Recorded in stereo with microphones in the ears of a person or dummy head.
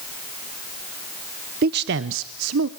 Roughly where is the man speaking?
Right.